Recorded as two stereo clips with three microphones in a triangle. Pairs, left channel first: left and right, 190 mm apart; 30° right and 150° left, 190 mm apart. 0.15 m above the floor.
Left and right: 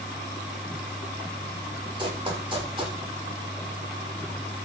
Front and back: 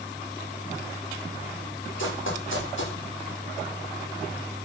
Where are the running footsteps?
25° right, 9.5 m.